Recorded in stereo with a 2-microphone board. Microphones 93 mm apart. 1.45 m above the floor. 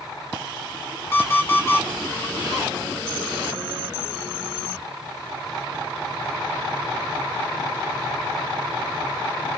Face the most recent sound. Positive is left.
turn(degrees=25)  # may be behind; listen again after turning